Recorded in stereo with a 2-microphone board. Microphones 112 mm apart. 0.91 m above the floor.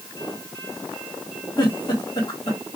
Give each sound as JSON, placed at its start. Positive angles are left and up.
{"t": 1.6, "sound": "a giggle", "side_deg": 40, "distance_m": 1.2}